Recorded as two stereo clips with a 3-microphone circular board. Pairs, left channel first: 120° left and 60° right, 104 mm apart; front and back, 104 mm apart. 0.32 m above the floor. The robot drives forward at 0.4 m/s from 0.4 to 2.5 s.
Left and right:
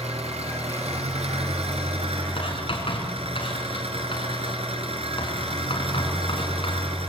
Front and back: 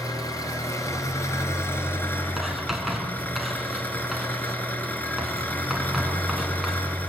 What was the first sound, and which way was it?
An engine running, 55° right.